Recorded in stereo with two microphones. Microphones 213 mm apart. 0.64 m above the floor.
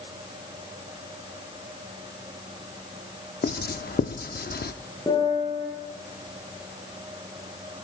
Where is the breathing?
I don't hear breathing.